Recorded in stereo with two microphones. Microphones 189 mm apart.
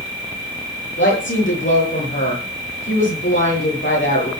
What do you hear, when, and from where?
1.0 s a woman speaking: 80° left, 9.5 m